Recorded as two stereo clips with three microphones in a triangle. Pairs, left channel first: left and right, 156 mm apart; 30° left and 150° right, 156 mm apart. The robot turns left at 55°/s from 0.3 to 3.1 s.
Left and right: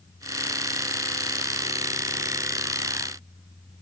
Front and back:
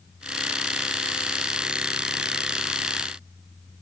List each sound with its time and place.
Only background noise.